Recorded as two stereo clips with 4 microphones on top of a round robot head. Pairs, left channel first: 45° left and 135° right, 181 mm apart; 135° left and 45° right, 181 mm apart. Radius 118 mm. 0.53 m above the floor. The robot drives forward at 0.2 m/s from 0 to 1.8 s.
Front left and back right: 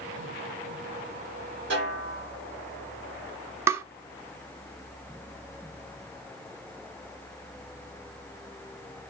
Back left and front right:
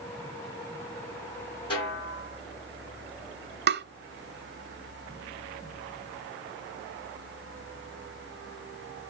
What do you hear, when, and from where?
1.7 s a snare drum: 160° right, 4 m
3.7 s tapping: 60° right, 0.7 m